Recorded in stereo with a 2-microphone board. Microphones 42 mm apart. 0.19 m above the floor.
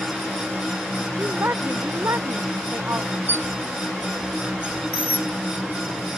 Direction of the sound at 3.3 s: 55° left (ahead or behind).